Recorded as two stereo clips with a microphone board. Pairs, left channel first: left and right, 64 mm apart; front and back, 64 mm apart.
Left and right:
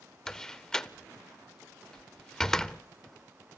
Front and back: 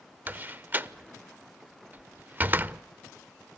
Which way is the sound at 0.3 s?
160° left.